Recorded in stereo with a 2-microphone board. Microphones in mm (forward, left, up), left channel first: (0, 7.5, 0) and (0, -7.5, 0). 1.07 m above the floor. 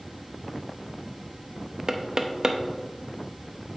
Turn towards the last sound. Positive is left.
turn(degrees=-35)  # may be behind; listen again after turning